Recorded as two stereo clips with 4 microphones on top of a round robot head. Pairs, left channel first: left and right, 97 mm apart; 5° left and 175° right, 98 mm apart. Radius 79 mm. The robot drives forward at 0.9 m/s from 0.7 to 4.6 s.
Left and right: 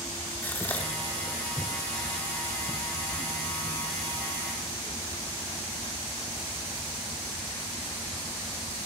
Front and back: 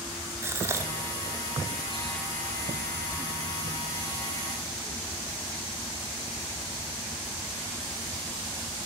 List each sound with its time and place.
0.4 s a gasp: 145° left, 1.2 m; by 2.2 s 170° left, 2 m